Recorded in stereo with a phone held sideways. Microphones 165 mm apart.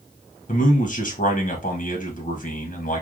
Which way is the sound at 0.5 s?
50° left (ahead or behind).